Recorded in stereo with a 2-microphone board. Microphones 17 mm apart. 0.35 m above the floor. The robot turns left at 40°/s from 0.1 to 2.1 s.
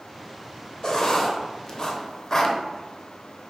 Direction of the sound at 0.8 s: 35° left (ahead or behind).